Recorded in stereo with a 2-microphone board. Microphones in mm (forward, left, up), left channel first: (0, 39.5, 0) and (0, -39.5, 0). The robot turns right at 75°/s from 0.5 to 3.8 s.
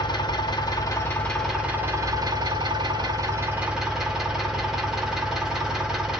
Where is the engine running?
105° left, 1.3 m; by 6.2 s 5° right, 1.3 m.